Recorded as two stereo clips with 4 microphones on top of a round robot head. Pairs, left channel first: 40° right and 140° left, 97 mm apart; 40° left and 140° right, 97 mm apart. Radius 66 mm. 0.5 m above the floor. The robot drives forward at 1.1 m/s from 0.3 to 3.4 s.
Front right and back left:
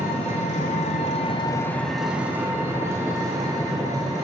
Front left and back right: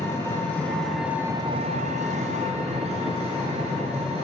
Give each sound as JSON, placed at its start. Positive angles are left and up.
{"t": 0.0, "sound": "an engine running", "azimuth_deg": -25, "distance_m": 1.4}